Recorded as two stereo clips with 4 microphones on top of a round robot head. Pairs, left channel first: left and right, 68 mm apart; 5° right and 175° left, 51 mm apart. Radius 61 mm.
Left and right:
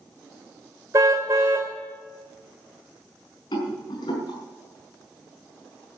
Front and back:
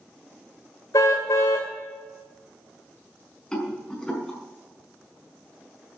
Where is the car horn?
35° right, 2 m.